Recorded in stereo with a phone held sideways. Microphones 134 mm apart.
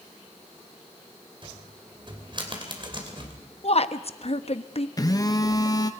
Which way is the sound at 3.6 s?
55° left (ahead or behind).